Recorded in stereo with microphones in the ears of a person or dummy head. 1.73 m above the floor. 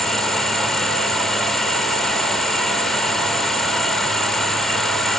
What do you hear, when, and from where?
0.0 s an insect: centre (ahead or behind)